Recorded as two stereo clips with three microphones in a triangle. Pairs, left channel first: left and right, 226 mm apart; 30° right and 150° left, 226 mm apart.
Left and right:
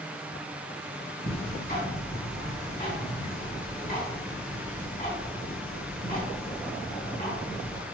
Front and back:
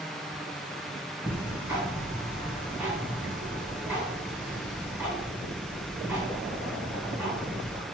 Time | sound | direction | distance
1.3 | ticking | 70° left | 2 m